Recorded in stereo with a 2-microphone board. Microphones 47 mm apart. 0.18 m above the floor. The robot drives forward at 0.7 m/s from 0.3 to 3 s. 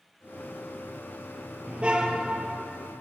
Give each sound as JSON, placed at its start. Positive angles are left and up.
{"t": 1.7, "sound": "a car horn", "side_deg": -25, "distance_m": 2.5}